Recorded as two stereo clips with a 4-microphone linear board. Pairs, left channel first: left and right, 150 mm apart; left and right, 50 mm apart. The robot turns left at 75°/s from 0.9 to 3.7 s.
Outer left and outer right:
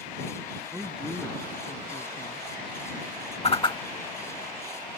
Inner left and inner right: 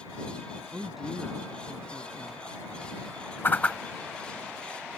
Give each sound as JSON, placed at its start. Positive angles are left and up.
{"t": 0.7, "sound": "a woman speaking", "azimuth_deg": -170}
{"t": 3.4, "sound": "a whoosh", "side_deg": 45}